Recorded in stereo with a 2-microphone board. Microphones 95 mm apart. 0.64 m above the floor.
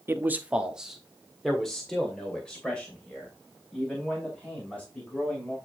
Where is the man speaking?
25° right (ahead or behind), 0.8 m; by 5.5 s 15° left (ahead or behind), 5 m.